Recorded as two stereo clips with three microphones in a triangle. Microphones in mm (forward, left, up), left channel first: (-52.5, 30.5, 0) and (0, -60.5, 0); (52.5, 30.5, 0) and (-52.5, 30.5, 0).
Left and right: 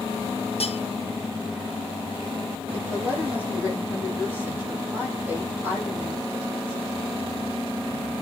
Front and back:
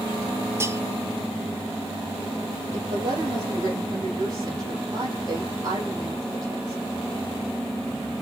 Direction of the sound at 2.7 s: 130° right.